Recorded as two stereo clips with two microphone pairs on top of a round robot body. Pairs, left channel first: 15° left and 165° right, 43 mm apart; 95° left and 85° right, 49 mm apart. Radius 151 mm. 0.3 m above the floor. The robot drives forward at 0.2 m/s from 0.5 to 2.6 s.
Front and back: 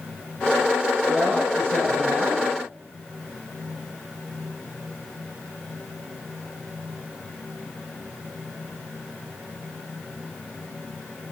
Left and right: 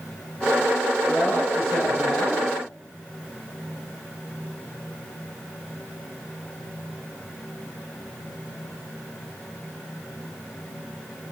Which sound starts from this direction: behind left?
A woman speaking, at 1.1 s.